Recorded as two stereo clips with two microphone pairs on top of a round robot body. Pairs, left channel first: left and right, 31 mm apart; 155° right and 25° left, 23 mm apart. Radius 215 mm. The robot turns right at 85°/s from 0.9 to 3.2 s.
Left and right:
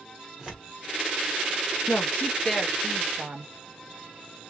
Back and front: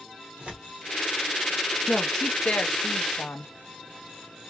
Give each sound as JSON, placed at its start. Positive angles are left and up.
{"t": 0.4, "sound": "tearing paper", "azimuth_deg": -10, "distance_m": 1.0}
{"t": 1.9, "sound": "a woman speaking", "azimuth_deg": 115, "distance_m": 0.9}